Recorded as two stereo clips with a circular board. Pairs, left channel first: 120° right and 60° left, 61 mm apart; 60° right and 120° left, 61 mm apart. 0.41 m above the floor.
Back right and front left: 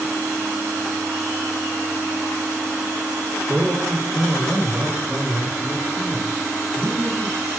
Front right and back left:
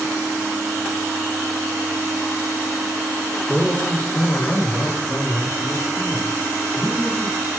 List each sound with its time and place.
3.5 s a man speaking: 20° left, 1.2 m; by 7.5 s 10° right, 3 m